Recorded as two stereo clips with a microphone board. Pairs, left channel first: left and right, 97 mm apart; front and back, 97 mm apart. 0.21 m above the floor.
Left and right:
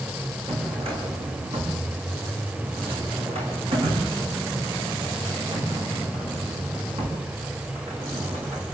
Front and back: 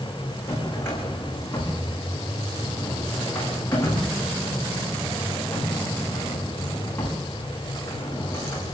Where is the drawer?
65° right, 7.5 m.